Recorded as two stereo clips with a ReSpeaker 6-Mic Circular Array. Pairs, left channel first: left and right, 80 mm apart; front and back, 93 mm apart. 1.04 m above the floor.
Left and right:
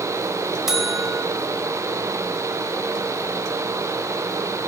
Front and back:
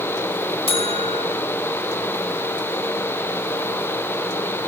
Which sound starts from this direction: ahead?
A buzzer, at 0.7 s.